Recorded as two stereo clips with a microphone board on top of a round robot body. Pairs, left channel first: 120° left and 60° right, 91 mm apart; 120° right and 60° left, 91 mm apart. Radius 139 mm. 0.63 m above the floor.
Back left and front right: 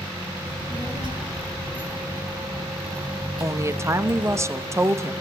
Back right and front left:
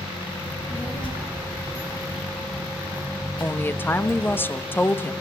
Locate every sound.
0.5 s a child speaking: 90° right, 6.5 m
3.4 s a woman speaking: 75° right, 1.2 m